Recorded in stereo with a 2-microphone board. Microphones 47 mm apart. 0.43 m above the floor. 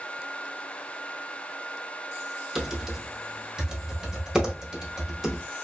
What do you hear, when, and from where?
2.5 s typing on a keyboard: 10° right (ahead or behind), 0.8 m